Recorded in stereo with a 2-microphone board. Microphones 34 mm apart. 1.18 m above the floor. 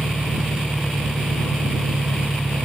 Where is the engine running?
40° right (ahead or behind).